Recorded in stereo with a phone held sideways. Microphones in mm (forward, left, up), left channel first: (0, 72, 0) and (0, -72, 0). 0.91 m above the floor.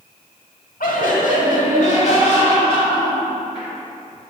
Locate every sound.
0.8 s laughter: 80° left, 1.4 m; by 3.7 s 35° left (ahead or behind), 3.5 m